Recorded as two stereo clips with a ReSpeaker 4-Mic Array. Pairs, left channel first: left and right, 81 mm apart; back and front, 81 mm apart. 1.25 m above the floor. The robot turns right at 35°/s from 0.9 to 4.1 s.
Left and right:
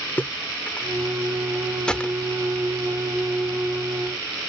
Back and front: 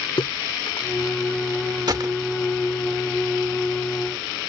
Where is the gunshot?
15° left; by 2.1 s 25° left.